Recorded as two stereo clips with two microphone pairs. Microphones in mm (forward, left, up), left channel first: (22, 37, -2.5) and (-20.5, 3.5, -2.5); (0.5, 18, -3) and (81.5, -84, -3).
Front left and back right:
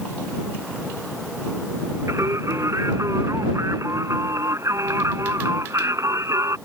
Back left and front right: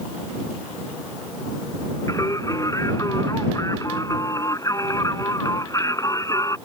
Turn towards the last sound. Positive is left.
turn(degrees=-165)